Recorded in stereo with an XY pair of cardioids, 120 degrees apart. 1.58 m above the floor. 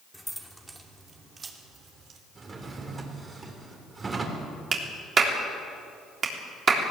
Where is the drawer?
30° right, 3.5 m.